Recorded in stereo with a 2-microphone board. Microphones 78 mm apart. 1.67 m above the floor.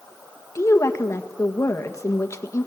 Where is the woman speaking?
40° left (ahead or behind), 1.6 m.